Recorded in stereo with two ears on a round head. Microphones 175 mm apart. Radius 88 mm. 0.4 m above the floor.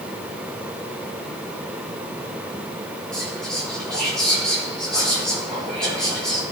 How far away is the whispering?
About 6.5 m.